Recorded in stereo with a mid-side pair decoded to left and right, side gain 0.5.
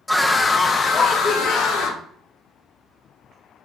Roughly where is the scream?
Ahead.